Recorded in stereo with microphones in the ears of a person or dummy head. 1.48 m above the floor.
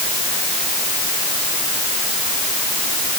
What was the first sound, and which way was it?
Only background noise.